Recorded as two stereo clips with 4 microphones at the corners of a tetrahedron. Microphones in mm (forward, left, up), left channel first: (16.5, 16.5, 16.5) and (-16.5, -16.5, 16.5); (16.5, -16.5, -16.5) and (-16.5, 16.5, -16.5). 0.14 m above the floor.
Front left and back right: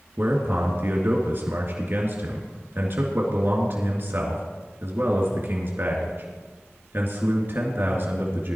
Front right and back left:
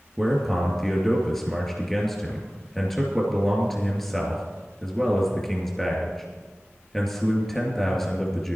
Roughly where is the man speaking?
Behind right.